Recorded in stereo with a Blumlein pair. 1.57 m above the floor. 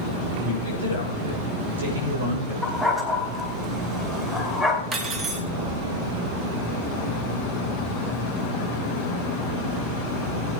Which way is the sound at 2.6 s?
5° right.